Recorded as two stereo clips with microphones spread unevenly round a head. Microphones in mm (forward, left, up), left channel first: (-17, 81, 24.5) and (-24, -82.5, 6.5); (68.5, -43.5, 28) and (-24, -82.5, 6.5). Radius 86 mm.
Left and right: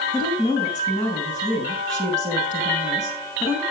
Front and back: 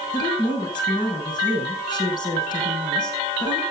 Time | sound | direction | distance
0.1 | a woman speaking | 25° right | 8.5 m